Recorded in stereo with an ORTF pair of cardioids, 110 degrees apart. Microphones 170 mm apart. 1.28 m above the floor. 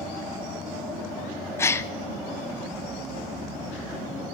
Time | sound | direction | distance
1.6 | a gasp | 15° left | 0.7 m